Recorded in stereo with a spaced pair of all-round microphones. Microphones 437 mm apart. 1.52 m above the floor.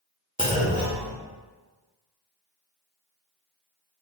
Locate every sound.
0.4 s a clunk: 10° right (ahead or behind), 1.3 m